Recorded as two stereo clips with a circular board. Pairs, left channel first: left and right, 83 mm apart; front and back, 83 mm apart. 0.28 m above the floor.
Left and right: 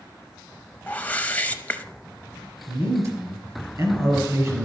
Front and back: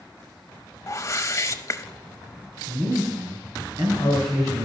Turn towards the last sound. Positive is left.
turn(degrees=-140)